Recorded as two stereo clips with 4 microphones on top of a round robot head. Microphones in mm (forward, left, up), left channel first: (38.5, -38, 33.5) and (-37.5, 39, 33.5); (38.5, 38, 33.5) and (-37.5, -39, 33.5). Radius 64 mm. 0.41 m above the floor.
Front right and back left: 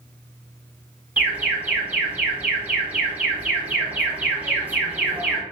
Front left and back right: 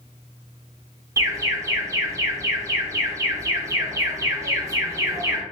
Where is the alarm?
160° right, 0.7 m.